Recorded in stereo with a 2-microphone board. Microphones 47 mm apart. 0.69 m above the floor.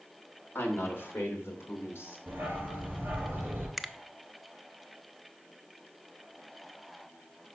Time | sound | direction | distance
0.6 | a woman speaking | 40° left (ahead or behind) | 1.7 m
2.3 | a dog barking | 45° right (ahead or behind) | 3.5 m
3.8 | a finger snap | centre (ahead or behind) | 0.5 m